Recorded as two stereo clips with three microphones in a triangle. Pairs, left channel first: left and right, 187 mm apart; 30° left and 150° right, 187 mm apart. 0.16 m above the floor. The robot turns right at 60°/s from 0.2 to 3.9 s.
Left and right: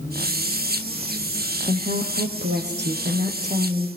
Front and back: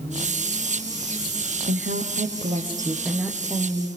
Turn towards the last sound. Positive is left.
turn(degrees=-15)